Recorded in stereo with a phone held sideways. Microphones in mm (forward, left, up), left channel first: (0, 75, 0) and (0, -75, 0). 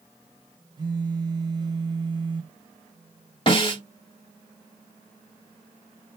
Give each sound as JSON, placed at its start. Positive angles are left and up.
{"t": 0.8, "sound": "a phone buzzing", "side_deg": -35, "distance_m": 0.7}
{"t": 3.5, "sound": "a snare drum", "side_deg": 35, "distance_m": 1.6}